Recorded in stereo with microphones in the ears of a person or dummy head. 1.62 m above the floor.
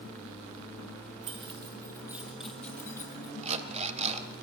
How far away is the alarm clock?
About 2.5 m.